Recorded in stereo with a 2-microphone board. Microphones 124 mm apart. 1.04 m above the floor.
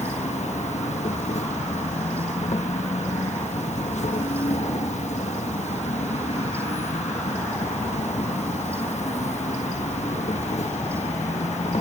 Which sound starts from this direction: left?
An insect, at 0.0 s.